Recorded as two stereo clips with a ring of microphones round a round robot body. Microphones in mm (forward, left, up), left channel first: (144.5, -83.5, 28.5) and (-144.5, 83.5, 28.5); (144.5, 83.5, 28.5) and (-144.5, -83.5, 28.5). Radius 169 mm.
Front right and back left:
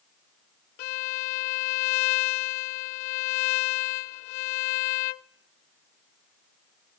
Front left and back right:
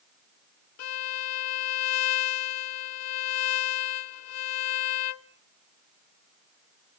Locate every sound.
0.8 s a violin: 15° right, 0.6 m